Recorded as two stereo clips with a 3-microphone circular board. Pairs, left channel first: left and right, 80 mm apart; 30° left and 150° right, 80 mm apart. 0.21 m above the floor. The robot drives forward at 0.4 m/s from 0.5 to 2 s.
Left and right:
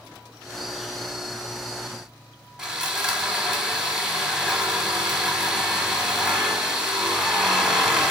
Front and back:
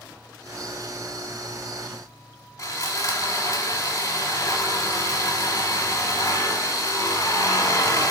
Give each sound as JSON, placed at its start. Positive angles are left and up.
{"t": 2.6, "sound": "sawing", "azimuth_deg": -10, "distance_m": 0.8}